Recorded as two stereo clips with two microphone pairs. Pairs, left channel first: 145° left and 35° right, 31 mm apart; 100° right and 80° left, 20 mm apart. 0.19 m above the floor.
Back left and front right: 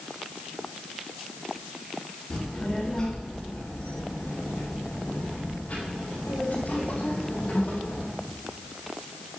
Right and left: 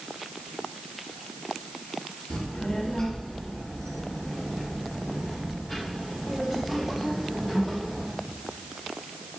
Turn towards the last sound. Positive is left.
turn(degrees=145)